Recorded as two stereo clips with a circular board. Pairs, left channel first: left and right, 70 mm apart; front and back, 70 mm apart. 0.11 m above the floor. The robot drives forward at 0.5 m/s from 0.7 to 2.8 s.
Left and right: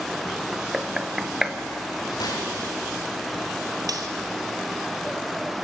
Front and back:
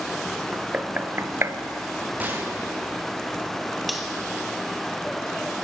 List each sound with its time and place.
0.5 s knocking: 155° right, 0.8 m; by 1.6 s 170° right, 1.1 m
2.2 s a gunshot: 115° left, 5 m
3.9 s cutlery clinking: 90° right, 1.5 m